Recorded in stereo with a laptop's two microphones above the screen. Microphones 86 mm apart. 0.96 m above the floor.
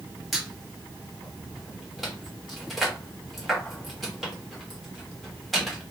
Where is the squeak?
Centre (ahead or behind), 1.1 m.